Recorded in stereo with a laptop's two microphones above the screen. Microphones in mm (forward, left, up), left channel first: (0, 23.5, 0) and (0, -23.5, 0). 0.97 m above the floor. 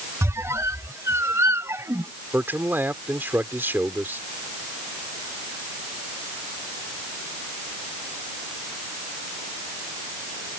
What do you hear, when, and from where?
0.2 s a squeak: 85° right
2.3 s a man speaking: 50° right (ahead or behind)